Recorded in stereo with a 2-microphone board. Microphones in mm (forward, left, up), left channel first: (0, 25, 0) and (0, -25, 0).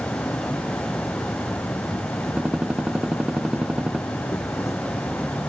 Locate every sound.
0.0 s an insect: 75° left (ahead or behind)
2.4 s a gunshot: 25° right (ahead or behind)